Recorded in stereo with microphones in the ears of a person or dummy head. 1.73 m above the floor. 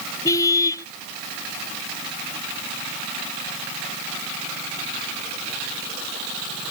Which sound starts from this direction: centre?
A car horn, at 0.2 s.